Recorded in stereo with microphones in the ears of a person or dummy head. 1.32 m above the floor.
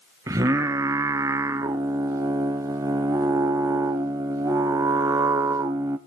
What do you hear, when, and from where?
0.3 s singing: 10° right (ahead or behind), 0.8 m